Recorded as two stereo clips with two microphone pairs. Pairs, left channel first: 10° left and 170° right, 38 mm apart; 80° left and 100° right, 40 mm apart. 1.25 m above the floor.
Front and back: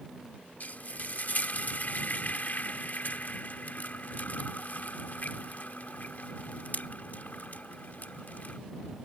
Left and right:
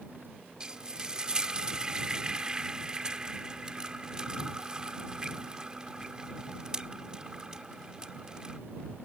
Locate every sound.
0.6 s frying: 30° right